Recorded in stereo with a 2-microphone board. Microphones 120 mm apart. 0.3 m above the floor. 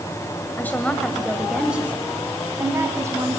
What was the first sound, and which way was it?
A woman speaking, 15° left (ahead or behind).